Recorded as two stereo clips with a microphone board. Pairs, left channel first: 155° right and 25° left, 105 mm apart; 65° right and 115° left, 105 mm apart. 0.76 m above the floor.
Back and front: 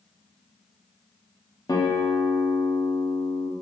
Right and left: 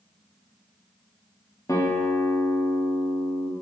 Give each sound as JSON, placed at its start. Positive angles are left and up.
{"t": 1.7, "sound": "a guitar", "azimuth_deg": -120, "distance_m": 1.2}